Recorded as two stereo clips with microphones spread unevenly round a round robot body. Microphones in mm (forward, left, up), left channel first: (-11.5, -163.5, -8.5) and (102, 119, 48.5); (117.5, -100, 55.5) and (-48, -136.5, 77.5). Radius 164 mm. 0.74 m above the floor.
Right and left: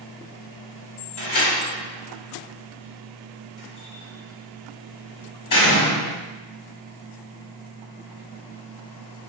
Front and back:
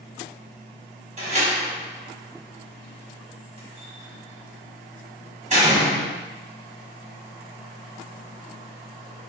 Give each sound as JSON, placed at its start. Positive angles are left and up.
{"t": 1.2, "sound": "a door slam", "azimuth_deg": -120, "distance_m": 1.4}